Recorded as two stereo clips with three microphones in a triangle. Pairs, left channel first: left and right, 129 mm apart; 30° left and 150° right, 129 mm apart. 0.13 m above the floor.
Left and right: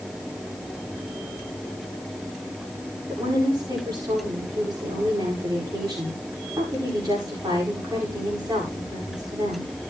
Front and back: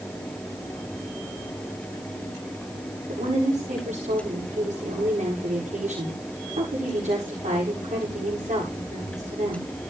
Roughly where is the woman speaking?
Behind right.